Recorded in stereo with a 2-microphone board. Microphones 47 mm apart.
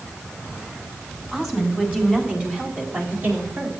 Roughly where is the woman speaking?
Centre.